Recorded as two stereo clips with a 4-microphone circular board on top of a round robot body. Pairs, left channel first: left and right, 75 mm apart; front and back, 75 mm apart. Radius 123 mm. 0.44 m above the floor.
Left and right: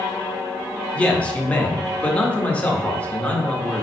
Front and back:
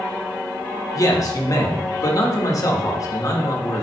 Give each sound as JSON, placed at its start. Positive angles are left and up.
{"t": 0.9, "sound": "a man speaking", "azimuth_deg": 20, "distance_m": 1.7}